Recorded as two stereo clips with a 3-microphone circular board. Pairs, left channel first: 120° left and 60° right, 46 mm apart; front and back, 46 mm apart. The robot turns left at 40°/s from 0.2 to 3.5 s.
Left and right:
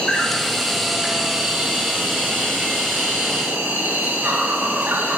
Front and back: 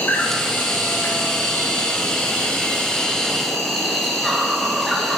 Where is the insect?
45° left, 3 m; by 5.2 s 85° right, 3 m.